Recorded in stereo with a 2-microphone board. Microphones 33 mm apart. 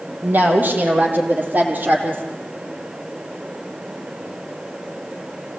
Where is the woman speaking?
70° right (ahead or behind), 4 m; by 2.2 s 60° right (ahead or behind), 4.5 m.